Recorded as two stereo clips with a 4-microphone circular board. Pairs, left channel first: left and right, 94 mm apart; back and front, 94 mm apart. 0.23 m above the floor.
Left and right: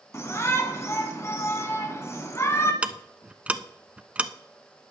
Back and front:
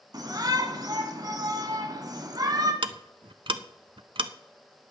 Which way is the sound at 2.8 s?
15° right.